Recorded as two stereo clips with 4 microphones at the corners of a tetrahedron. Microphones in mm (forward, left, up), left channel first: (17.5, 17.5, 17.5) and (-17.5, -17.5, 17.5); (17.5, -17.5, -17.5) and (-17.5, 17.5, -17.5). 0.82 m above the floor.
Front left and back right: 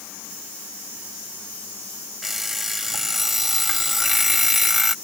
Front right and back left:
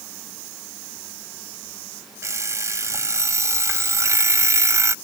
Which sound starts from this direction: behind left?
An alarm clock, at 2.2 s.